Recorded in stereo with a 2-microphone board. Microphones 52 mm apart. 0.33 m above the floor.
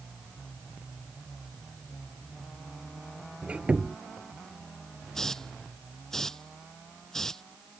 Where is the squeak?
25° right (ahead or behind).